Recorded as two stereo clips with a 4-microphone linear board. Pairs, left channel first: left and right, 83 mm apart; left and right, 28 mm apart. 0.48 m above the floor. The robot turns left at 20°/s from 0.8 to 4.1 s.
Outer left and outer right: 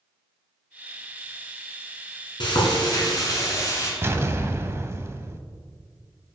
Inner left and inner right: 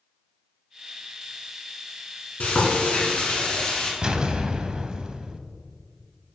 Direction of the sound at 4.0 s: 30° right (ahead or behind).